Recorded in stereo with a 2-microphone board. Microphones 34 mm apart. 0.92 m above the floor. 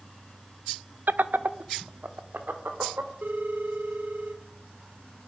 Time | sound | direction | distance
1.1 | laughter | 65° right (ahead or behind) | 0.6 m
3.2 | a phone ringing | 70° right (ahead or behind) | 2 m